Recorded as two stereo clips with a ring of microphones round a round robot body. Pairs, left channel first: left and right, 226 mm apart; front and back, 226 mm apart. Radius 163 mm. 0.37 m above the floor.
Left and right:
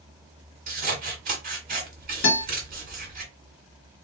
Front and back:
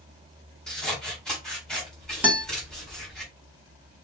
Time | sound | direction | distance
0.7 | scissors | 85° right | 1.4 m
2.2 | a guitar | 100° left | 1.8 m